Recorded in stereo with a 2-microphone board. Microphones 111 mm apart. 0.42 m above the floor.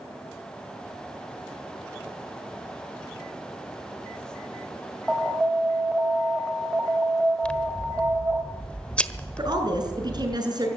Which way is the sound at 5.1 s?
10° right (ahead or behind).